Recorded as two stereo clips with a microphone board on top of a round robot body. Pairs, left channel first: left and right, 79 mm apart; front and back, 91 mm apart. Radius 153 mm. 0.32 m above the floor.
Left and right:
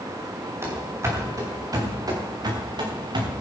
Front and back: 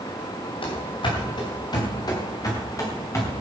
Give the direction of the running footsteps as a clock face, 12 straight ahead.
1 o'clock.